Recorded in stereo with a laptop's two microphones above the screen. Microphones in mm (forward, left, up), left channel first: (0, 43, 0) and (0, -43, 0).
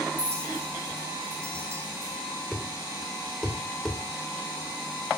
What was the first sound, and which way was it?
A clink, 30° right (ahead or behind).